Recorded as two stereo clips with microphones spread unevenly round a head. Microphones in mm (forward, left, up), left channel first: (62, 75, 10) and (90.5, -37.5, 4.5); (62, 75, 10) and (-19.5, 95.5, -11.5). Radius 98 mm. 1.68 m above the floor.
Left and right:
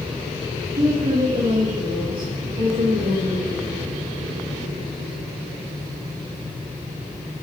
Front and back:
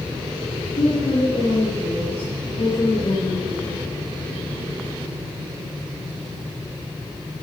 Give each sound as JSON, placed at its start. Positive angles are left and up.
{"t": 0.8, "sound": "a woman speaking", "azimuth_deg": -35, "distance_m": 3.0}